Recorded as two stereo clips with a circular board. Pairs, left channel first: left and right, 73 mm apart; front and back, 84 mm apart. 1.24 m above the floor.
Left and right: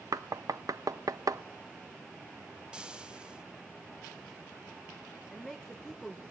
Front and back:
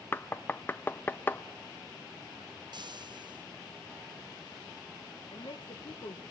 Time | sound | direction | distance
0.1 | knocking | 60° right | 0.6 m
2.7 | frying | 165° right | 1.0 m
5.3 | a woman speaking | 5° left | 1.1 m